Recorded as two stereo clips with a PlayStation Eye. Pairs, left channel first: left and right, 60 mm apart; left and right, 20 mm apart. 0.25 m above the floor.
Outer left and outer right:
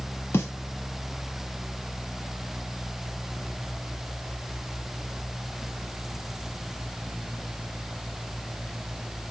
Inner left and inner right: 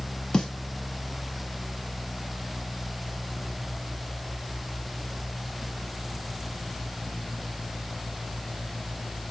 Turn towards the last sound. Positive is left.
turn(degrees=45)  # may be behind; listen again after turning